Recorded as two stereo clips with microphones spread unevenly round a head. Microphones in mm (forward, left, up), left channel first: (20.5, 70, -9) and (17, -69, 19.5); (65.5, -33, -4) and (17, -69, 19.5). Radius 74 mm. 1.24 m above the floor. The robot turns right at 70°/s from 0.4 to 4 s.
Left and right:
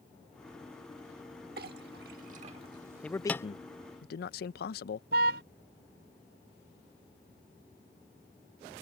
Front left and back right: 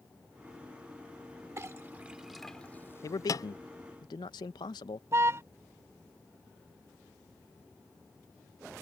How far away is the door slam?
No door slam in this recording.